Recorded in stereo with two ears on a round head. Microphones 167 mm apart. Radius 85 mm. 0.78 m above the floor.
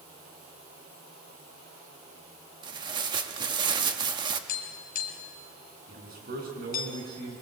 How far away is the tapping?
About 3 m.